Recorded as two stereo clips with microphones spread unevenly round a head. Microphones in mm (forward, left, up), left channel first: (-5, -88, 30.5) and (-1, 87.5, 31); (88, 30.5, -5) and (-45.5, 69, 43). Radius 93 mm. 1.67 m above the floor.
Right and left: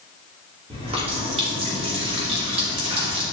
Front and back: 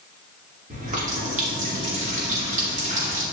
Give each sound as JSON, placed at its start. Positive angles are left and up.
{"t": 0.7, "sound": "a running tap", "azimuth_deg": 150, "distance_m": 2.5}